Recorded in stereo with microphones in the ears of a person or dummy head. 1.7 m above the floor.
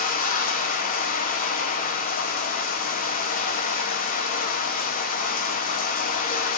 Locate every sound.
0.0 s running water: 40° left (ahead or behind), 1.2 m